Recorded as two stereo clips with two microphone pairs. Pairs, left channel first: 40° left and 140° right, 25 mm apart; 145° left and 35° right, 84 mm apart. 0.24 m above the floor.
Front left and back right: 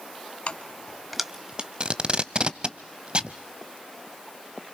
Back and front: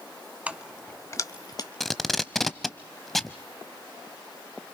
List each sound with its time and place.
0.5 s keys jangling: 35° left, 1.0 m; by 1.7 s straight behind, 1.3 m
1.8 s tape being pulled: 125° right, 0.7 m